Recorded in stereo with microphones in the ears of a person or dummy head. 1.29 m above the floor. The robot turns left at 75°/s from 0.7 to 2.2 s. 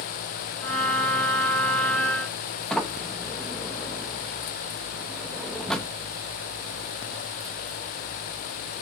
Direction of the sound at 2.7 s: 5° left (ahead or behind).